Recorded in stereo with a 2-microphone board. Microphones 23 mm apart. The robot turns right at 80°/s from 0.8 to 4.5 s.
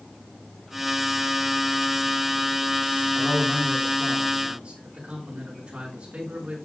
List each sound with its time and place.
3.1 s a man speaking: 155° left, 5 m; by 6.6 s 100° right, 5 m